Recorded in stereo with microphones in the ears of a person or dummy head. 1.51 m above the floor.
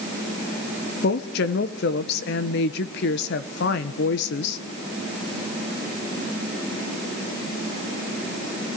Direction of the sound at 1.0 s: 65° left (ahead or behind).